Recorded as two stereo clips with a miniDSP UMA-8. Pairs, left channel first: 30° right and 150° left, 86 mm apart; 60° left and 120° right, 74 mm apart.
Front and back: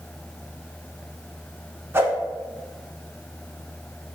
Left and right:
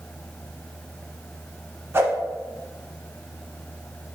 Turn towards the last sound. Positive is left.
turn(degrees=-165)